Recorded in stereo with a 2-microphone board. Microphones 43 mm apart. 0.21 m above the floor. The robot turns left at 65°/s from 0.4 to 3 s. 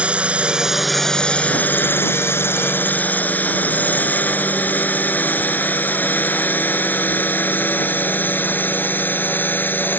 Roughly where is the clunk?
No clunk in this recording.